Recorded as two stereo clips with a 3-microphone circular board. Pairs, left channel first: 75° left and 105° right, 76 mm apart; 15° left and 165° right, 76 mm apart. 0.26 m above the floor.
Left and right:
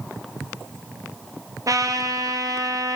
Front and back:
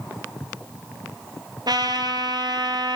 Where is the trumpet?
145° right, 1.2 m.